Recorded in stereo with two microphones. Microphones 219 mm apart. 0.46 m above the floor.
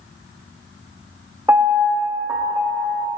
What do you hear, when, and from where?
1.5 s a piano: 15° right (ahead or behind), 1.3 m